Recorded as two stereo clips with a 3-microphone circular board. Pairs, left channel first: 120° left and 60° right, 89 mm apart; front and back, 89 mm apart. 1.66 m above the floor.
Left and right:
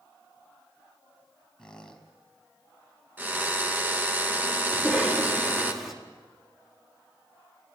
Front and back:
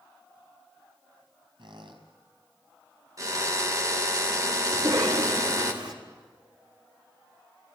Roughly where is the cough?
Behind right.